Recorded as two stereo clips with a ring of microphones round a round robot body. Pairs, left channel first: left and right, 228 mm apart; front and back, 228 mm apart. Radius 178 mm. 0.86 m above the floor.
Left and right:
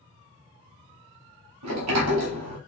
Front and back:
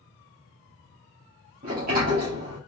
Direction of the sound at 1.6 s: 115° right.